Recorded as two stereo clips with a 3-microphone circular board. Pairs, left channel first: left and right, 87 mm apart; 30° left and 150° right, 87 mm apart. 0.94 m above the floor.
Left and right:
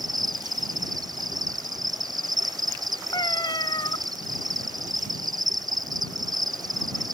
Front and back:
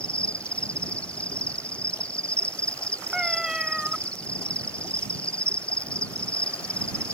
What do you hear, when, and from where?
0.0 s an insect: 45° right
3.1 s a cat meowing: 130° left